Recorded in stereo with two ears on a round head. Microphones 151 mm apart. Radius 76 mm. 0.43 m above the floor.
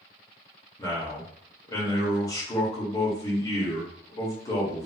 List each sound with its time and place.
0.8 s a man speaking: 25° left (ahead or behind), 1.2 m